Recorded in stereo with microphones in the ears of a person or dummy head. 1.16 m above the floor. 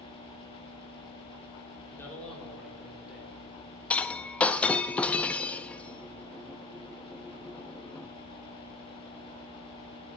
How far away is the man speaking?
About 3 m.